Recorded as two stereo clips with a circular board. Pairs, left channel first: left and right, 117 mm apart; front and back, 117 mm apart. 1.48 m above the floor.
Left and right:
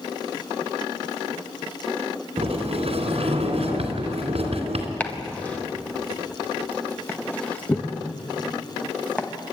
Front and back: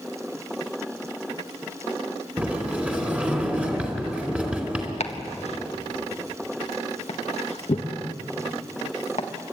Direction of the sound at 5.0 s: 15° left.